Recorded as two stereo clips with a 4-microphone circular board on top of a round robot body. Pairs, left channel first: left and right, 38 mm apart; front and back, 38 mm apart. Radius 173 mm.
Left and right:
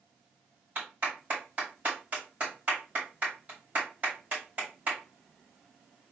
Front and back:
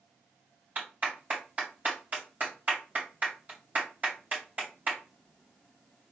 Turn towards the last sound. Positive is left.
turn(degrees=-140)